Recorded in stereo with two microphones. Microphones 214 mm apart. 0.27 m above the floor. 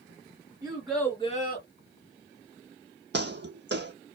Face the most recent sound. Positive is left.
turn(degrees=-55)  # may be behind; listen again after turning